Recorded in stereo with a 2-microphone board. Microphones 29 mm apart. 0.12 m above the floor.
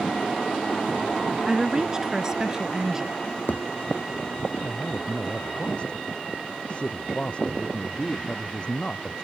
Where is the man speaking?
35° left (ahead or behind).